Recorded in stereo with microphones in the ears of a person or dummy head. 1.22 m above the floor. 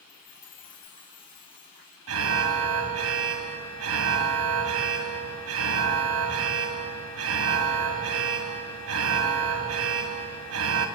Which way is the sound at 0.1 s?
25° left (ahead or behind).